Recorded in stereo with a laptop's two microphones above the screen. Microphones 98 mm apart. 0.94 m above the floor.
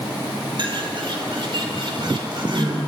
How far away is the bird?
About 3.5 m.